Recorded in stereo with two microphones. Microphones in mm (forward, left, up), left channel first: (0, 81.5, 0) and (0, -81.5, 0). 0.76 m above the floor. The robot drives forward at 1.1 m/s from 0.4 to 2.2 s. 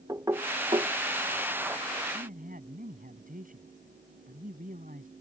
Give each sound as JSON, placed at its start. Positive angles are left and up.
{"t": 0.1, "sound": "knocking", "side_deg": -20}
{"t": 2.1, "sound": "a man speaking", "side_deg": -60}